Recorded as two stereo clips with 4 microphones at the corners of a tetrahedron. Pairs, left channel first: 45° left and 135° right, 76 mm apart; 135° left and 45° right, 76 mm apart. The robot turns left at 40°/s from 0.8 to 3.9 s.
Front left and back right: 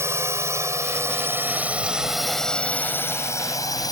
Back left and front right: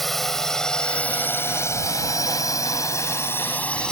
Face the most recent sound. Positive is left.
turn(degrees=60)